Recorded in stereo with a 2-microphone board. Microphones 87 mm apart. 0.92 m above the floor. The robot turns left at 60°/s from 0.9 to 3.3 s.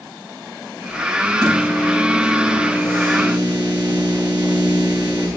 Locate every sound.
1.4 s a microwave: 55° left, 8.5 m; by 5.3 s 60° right, 8.5 m